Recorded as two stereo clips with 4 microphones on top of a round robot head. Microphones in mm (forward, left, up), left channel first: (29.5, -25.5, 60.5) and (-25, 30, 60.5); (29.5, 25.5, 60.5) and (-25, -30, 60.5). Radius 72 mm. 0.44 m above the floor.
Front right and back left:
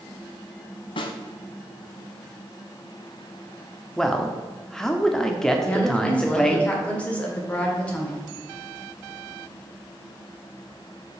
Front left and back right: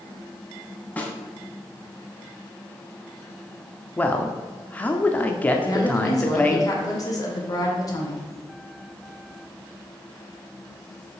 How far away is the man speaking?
About 0.8 m.